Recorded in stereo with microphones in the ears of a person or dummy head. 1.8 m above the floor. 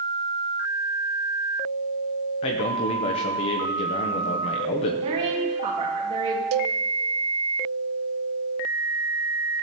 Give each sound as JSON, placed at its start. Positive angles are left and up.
{"t": 2.4, "sound": "a man speaking", "side_deg": 25, "distance_m": 0.8}
{"t": 5.0, "sound": "a woman speaking", "side_deg": -35, "distance_m": 2.5}
{"t": 6.5, "sound": "a cowbell", "side_deg": -85, "distance_m": 0.5}